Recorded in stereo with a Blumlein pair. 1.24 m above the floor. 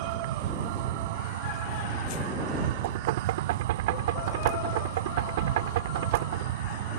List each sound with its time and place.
0.0 s an insect: 55° right
2.8 s knocking: 55° right